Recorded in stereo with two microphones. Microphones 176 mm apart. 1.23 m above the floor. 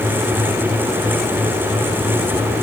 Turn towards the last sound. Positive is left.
No sound to turn to.